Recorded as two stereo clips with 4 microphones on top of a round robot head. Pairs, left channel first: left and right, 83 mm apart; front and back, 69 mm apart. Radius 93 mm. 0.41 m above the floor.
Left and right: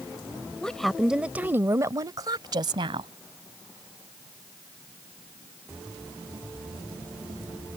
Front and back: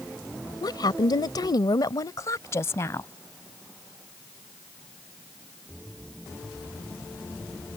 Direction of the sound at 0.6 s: 10° left.